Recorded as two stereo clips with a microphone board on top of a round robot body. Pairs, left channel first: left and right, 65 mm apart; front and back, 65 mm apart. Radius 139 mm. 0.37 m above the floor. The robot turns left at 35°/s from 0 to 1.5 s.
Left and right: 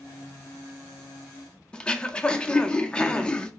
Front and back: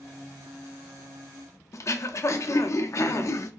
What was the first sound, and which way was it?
Throat clearing, 15° left.